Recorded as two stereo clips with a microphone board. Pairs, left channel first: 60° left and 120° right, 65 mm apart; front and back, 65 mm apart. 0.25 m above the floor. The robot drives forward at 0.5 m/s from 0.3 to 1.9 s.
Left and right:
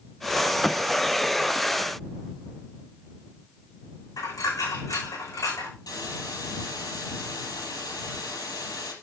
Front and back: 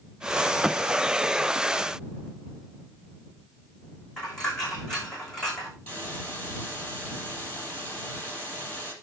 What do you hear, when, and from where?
4.2 s a dropped coin: 80° left, 8.5 m
5.9 s a hiss: 65° left, 5.5 m